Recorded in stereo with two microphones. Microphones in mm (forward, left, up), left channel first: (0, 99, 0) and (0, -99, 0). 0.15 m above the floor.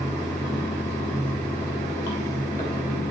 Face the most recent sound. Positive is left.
turn(degrees=15)  # may be behind; listen again after turning